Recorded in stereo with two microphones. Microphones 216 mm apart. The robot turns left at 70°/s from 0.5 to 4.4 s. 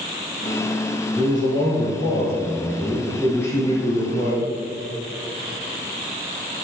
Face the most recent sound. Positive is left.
turn(degrees=100)